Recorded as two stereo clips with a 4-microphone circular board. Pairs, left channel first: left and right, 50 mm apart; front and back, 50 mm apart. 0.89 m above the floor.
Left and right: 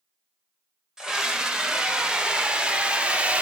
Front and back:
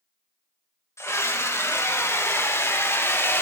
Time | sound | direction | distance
1.0 | a scream | 15° right | 5 m